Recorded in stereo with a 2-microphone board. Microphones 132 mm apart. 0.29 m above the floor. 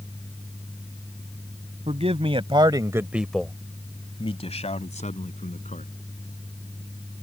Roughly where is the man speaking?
Right.